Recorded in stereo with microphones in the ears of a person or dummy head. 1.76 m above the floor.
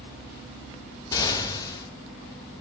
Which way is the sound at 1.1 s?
25° left (ahead or behind).